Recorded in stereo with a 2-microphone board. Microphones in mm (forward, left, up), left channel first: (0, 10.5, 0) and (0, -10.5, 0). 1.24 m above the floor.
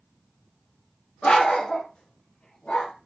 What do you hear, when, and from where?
1.2 s a dog barking: 55° left (ahead or behind), 1.5 m; by 2.9 s 75° left (ahead or behind), 2 m